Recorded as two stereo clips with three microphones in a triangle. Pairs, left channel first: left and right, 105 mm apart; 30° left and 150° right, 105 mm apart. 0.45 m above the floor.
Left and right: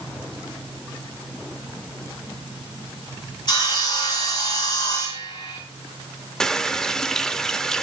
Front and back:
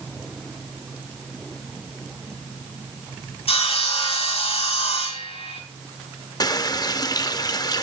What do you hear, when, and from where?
3.5 s sawing: 45° left, 4 m
6.4 s a running tap: 5° left, 0.7 m